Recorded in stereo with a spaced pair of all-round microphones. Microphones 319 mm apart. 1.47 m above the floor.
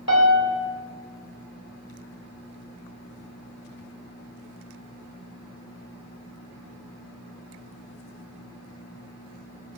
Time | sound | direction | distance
0.1 | a piano | 50° left (ahead or behind) | 3.5 m